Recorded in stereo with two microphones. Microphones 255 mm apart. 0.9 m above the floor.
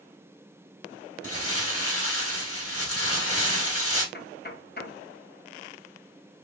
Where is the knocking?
40° left (ahead or behind), 0.6 m.